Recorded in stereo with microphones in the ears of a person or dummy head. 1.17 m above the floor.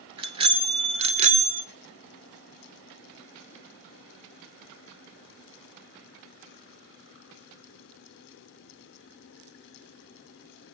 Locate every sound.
0.2 s a bicycle bell: 30° right (ahead or behind), 2.5 m; by 1.6 s 50° right (ahead or behind), 1.5 m